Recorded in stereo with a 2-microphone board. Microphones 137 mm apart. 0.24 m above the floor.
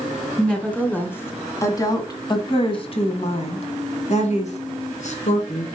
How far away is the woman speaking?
About 1.9 m.